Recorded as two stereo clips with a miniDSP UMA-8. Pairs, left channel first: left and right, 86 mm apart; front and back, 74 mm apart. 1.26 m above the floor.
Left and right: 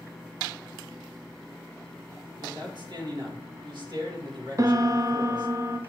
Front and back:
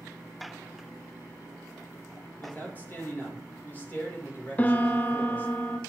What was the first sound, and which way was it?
A man speaking, 60° right.